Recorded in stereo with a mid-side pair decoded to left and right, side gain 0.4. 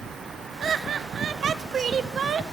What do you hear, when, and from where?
0.6 s laughter: 60° right, 1.2 m